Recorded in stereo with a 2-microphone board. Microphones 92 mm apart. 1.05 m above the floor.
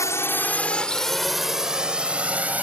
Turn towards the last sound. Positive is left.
turn(degrees=-15)  # may be behind; listen again after turning